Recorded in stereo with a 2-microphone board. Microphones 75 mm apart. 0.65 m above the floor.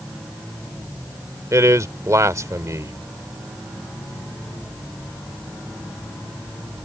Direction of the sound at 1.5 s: 45° right (ahead or behind).